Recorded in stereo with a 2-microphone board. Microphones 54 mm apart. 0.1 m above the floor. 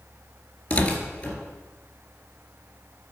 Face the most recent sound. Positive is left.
turn(degrees=25)  # may be behind; listen again after turning